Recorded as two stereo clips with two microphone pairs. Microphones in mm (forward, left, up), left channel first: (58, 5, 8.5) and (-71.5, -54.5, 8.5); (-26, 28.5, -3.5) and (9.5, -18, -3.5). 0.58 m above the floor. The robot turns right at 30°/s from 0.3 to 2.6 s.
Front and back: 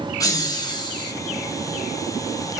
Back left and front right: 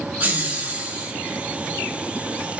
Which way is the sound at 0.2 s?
20° right.